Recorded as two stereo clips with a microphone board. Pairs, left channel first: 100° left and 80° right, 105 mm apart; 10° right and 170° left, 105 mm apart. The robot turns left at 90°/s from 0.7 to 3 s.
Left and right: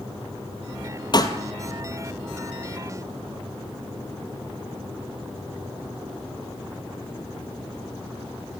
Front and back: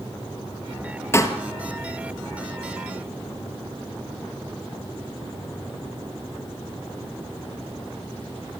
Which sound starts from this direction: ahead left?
A pop, at 1.1 s.